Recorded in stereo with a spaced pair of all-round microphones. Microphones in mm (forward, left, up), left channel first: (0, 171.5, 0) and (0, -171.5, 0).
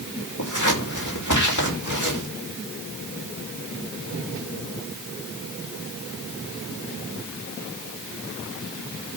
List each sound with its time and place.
0.4 s scissors: 60° left (ahead or behind), 5.5 m